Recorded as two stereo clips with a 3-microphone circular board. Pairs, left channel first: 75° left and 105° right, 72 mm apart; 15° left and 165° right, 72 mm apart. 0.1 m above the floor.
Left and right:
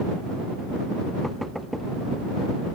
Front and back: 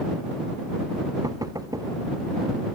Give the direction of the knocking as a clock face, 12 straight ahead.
7 o'clock.